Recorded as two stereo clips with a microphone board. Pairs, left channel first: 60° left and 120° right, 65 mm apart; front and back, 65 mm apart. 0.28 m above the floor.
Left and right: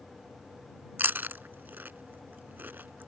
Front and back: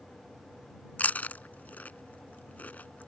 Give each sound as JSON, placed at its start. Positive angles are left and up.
{"t": 1.0, "sound": "chewing", "azimuth_deg": -65}